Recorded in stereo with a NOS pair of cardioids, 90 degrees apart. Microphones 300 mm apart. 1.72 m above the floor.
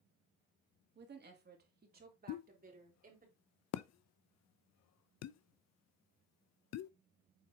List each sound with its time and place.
0.9 s a woman speaking: 35° right, 2.5 m; by 3.3 s 25° right, 4 m
2.3 s a pop: 60° left, 0.6 m